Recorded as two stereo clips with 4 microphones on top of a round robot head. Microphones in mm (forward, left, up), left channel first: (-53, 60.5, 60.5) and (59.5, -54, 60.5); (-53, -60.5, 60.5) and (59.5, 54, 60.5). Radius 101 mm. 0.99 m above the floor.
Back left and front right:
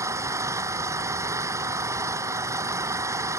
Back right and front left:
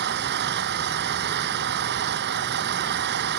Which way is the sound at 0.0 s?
30° left.